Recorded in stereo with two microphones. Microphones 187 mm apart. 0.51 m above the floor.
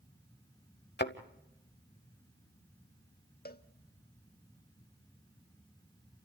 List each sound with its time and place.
1.0 s a thud: 65° left (ahead or behind), 1.0 m
3.5 s a cowbell: 60° left (ahead or behind), 0.8 m